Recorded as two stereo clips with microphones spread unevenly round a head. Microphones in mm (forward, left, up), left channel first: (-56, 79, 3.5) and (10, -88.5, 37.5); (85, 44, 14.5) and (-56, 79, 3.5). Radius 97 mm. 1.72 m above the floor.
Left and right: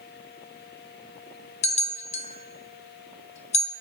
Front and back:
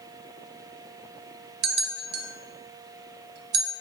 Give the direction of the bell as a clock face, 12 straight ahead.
6 o'clock.